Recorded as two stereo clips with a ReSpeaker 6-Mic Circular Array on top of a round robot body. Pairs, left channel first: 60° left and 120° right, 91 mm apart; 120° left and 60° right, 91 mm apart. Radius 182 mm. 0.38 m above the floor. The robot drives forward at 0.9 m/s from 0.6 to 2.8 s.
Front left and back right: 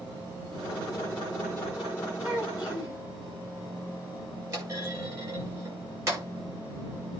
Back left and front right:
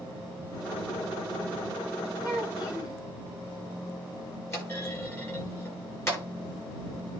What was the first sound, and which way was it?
A child speaking, 165° left.